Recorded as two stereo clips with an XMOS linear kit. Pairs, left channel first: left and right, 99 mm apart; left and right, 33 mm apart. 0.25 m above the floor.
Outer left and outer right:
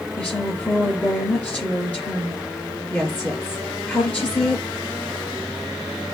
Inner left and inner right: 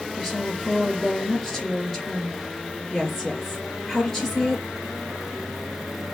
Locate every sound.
0.2 s a woman speaking: 15° left (ahead or behind), 4.5 m